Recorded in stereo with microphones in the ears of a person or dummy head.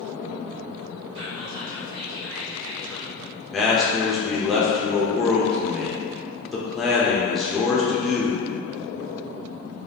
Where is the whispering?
60° right (ahead or behind), 0.5 m.